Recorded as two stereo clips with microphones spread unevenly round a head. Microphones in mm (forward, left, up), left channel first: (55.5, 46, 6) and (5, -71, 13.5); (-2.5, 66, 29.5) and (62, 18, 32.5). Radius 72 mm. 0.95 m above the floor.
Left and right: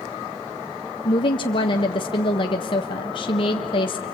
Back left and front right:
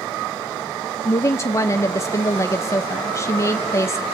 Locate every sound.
1.1 s a woman speaking: 105° left, 0.6 m